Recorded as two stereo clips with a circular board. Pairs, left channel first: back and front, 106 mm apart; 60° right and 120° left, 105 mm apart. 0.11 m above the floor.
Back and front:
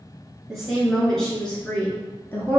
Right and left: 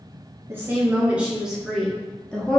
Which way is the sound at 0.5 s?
85° left.